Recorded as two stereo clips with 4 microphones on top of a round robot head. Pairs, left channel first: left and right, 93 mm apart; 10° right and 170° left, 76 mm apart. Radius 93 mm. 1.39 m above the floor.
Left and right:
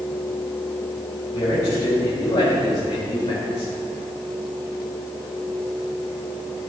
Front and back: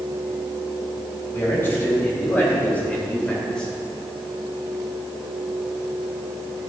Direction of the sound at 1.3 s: 45° left.